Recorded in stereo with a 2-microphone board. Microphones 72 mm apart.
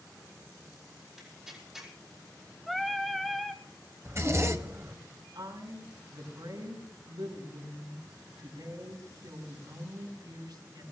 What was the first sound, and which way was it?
Tearing paper, 5° right (ahead or behind).